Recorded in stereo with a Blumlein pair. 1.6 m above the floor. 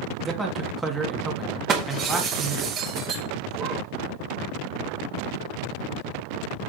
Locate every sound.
0.2 s a man speaking: 5° right, 3 m
1.7 s breaking glass: 30° right, 2.5 m